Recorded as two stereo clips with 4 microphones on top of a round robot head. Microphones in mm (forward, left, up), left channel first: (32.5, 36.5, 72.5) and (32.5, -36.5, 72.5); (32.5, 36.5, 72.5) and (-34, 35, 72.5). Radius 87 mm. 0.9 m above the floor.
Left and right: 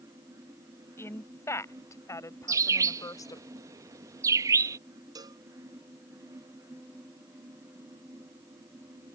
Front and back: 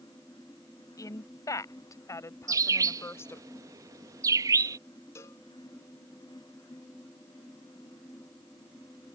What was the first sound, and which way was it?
A woman speaking, 35° left.